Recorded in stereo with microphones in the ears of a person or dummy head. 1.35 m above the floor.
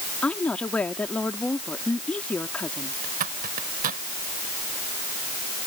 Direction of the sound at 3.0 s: 45° right (ahead or behind).